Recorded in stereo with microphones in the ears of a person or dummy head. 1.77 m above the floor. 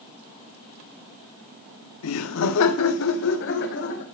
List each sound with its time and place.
2.0 s laughter: 80° left, 1.0 m; by 4.0 s 60° left (ahead or behind), 2.5 m